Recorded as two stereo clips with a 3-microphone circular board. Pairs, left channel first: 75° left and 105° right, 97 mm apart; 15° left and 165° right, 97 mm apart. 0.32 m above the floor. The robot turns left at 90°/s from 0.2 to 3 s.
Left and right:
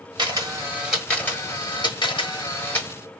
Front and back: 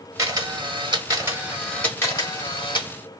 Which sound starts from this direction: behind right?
A camera shutter, at 0.2 s.